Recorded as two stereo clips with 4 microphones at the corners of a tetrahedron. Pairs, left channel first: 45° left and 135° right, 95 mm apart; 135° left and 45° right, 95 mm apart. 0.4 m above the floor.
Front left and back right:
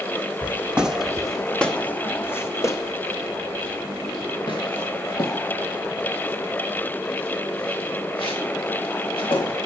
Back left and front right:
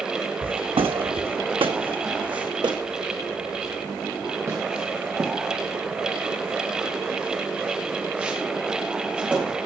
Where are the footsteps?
65° right, 1.3 m; by 9.6 s 30° left, 4.5 m.